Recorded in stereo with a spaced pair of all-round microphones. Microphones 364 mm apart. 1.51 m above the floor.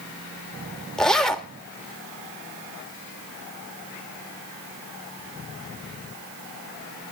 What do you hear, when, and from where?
1.0 s a zipper: centre (ahead or behind), 1.6 m